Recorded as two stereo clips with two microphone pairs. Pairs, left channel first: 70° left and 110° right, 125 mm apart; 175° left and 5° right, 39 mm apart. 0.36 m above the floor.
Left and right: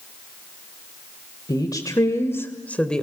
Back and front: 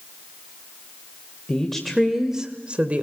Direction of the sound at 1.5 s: 110° left.